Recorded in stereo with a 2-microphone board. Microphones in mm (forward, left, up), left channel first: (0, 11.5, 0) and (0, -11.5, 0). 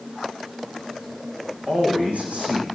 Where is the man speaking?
80° right, 7.5 m.